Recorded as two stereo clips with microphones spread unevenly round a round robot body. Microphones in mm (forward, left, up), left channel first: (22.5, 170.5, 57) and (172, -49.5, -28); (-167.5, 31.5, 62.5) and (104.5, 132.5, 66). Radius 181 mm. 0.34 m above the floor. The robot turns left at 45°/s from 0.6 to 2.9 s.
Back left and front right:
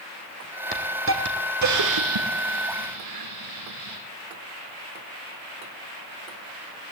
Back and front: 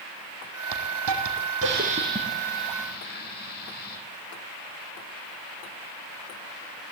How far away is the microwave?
I don't hear a microwave.